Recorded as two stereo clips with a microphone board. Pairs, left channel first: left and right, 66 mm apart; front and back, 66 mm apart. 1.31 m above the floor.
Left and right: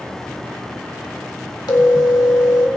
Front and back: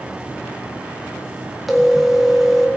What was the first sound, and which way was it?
A phone ringing, 90° left.